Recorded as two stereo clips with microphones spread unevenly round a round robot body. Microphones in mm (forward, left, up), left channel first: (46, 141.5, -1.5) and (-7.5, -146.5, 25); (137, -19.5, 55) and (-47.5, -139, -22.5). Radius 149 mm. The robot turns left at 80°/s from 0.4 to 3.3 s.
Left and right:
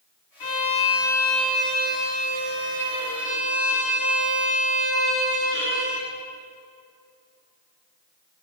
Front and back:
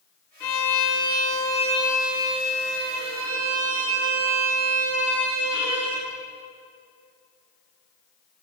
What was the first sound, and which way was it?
A violin, 75° left.